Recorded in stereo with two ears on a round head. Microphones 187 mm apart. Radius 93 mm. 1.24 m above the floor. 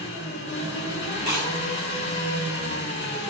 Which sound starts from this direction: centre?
Chewing, at 1.2 s.